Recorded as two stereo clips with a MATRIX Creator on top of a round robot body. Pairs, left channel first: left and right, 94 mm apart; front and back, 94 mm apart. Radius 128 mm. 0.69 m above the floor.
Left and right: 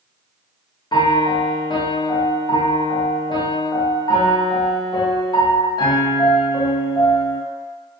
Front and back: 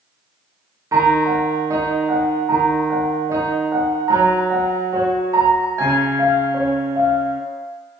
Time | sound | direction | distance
0.9 | a piano | 125° left | 0.5 m